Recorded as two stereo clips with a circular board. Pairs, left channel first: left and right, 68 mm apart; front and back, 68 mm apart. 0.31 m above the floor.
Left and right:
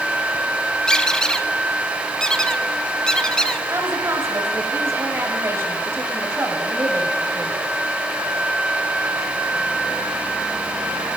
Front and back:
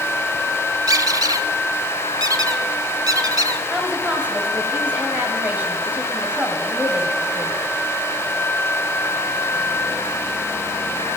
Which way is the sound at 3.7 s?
125° right.